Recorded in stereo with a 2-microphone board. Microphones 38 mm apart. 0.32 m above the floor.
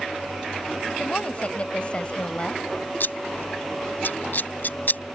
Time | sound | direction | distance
1.0 | a woman speaking | 35° left (ahead or behind) | ?
3.0 | scissors | 60° left (ahead or behind) | ?